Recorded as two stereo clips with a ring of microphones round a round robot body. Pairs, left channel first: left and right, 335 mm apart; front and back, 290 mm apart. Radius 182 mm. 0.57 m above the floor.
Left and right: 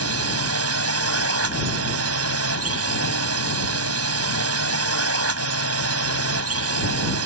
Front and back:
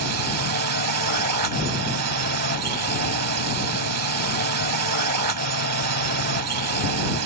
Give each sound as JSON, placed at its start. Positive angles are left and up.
{"t": 0.0, "sound": "a drone", "azimuth_deg": -140}